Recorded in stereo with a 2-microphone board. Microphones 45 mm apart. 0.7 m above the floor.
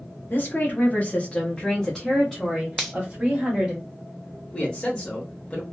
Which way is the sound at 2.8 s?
Centre (ahead or behind).